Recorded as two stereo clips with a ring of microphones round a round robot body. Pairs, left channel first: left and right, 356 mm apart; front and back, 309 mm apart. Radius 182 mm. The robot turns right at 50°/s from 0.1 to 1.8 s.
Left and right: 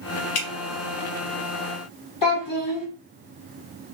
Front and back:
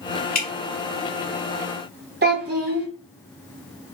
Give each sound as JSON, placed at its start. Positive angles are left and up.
{"t": 0.3, "sound": "dripping", "azimuth_deg": 60, "distance_m": 0.9}
{"t": 2.2, "sound": "a child speaking", "azimuth_deg": 125, "distance_m": 1.3}